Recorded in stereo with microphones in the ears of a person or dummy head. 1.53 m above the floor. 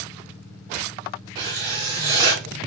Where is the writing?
25° right (ahead or behind), 1.5 m.